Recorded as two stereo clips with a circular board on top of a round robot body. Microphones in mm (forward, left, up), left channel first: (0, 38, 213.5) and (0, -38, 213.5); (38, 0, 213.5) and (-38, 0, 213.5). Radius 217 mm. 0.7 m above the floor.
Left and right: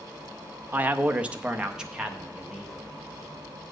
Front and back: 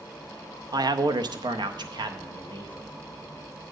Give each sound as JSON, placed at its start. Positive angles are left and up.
{"t": 0.7, "sound": "a man speaking", "azimuth_deg": -155, "distance_m": 0.8}